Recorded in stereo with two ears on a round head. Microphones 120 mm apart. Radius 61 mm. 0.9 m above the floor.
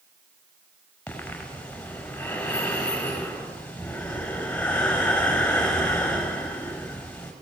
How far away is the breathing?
About 6 m.